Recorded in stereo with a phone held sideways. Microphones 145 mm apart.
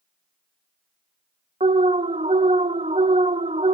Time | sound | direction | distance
1.6 | an alarm | 45° right (ahead or behind) | 0.6 m